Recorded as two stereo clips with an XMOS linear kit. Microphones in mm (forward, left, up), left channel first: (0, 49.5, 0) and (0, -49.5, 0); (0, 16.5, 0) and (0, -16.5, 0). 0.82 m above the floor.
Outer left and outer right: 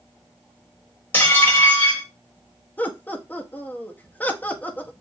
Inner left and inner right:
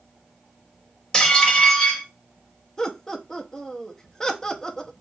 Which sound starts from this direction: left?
Dishes clattering, at 1.1 s.